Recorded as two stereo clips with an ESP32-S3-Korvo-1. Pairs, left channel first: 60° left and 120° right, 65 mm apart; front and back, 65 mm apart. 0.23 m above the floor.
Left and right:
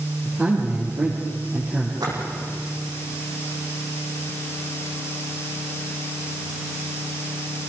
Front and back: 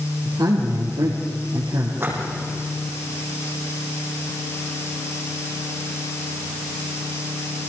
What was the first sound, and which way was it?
A man speaking, 170° left.